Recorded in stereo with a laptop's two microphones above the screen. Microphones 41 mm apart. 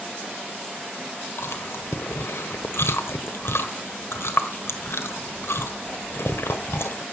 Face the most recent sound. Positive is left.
turn(degrees=75)  # may be behind; listen again after turning